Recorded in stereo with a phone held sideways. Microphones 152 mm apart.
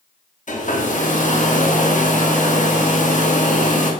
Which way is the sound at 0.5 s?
55° left (ahead or behind).